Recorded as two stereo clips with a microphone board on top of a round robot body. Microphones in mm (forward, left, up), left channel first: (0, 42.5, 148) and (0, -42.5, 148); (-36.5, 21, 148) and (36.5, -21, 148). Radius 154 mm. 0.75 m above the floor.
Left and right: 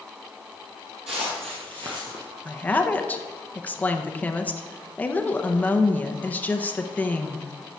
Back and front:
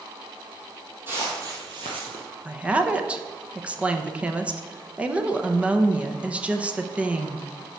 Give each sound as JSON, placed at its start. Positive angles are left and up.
{"t": 1.1, "sound": "footsteps", "azimuth_deg": -95, "distance_m": 1.5}
{"t": 2.5, "sound": "a woman speaking", "azimuth_deg": 35, "distance_m": 1.0}